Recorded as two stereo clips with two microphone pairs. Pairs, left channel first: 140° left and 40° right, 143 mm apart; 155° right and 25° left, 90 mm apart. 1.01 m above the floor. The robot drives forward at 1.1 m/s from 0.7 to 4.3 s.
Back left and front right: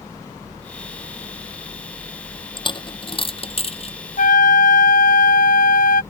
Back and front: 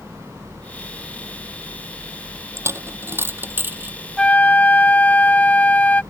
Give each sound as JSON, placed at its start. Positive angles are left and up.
{"t": 2.6, "sound": "a dropped coin", "azimuth_deg": 80}
{"t": 4.2, "sound": "a flute", "azimuth_deg": 120}